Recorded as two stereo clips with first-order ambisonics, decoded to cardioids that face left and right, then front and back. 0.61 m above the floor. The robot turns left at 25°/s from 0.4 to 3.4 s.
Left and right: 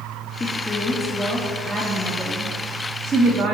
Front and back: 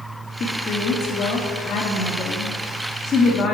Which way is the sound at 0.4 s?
30° left.